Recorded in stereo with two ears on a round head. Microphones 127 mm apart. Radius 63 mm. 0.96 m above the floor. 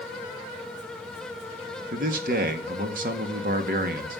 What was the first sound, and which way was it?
A man speaking, 65° right (ahead or behind).